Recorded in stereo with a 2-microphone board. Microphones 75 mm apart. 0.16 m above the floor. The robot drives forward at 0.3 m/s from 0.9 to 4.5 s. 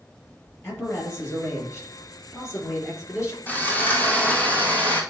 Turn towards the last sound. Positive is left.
turn(degrees=20)  # may be behind; listen again after turning